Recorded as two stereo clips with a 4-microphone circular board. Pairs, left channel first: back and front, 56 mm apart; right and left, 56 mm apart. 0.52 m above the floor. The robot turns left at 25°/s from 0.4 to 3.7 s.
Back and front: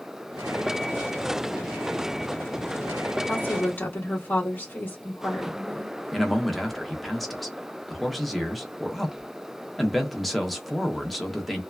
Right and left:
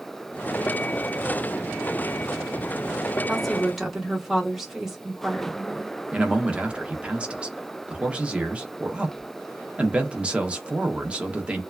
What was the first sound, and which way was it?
A woman speaking, 175° right.